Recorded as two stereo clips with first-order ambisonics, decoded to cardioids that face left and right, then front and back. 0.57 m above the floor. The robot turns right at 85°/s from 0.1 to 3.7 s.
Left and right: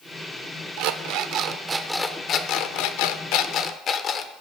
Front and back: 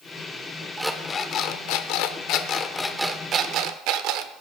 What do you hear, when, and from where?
0.8 s an alarm clock: 100° right, 0.7 m; by 4.3 s 150° left, 0.7 m